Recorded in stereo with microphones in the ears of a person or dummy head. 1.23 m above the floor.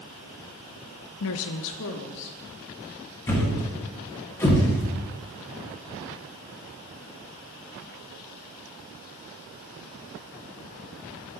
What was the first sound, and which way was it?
A woman speaking, 80° left.